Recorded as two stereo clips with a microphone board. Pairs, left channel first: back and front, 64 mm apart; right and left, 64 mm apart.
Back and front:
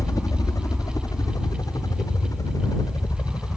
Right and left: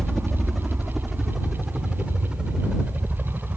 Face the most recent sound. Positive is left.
turn(degrees=160)